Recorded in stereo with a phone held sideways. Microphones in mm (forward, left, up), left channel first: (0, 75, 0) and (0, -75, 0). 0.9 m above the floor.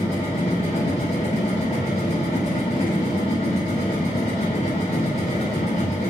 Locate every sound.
0.0 s a machine running: 55° left (ahead or behind), 2 m